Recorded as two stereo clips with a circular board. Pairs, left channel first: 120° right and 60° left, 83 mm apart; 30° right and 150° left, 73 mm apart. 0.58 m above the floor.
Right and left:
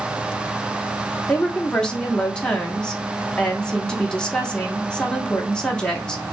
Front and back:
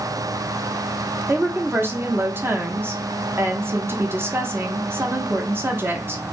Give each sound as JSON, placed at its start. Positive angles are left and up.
{"t": 1.3, "sound": "a woman speaking", "azimuth_deg": 170, "distance_m": 0.8}